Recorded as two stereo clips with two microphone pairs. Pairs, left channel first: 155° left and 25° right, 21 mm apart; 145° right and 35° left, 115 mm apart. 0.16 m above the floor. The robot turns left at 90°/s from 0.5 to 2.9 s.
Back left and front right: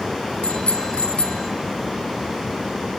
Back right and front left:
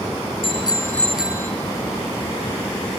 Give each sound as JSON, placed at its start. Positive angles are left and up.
{"t": 0.4, "sound": "a bicycle bell", "azimuth_deg": 180, "distance_m": 2.5}